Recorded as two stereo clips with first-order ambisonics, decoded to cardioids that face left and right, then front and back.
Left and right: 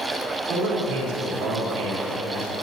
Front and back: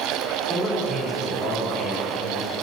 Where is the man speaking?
110° right, 5 m.